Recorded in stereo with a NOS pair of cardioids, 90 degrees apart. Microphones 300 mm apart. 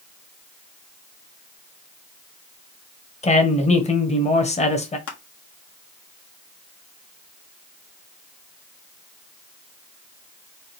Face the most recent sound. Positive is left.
turn(degrees=50)